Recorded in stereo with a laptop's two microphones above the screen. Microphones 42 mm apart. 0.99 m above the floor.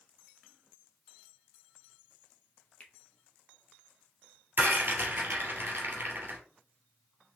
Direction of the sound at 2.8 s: 35° left (ahead or behind).